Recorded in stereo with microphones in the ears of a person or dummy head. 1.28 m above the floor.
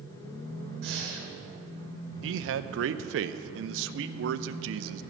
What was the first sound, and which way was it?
Breathing, 65° right (ahead or behind).